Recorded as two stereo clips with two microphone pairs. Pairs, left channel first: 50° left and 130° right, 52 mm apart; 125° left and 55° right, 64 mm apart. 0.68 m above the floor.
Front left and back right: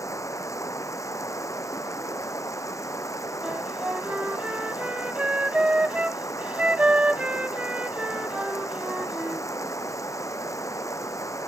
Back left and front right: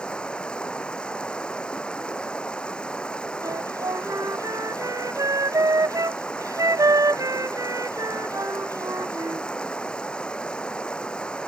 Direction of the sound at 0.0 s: 55° left.